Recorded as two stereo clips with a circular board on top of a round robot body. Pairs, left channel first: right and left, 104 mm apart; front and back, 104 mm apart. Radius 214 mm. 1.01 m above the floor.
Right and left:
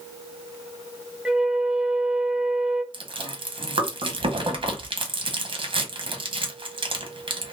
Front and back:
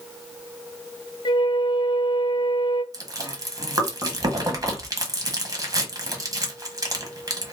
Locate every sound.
1.2 s a flute: 15° left, 0.7 m
2.9 s chewing: 125° left, 1.2 m